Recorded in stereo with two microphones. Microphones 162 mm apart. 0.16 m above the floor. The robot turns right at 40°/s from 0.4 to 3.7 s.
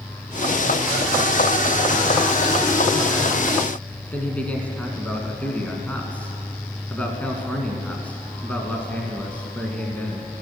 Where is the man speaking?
10° left (ahead or behind), 1.4 m.